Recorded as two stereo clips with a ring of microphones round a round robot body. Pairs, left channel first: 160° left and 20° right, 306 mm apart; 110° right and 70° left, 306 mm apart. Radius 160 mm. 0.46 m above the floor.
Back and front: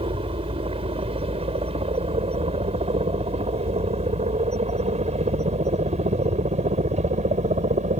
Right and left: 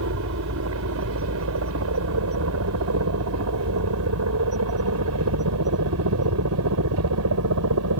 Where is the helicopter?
45° left; by 8.0 s 40° left.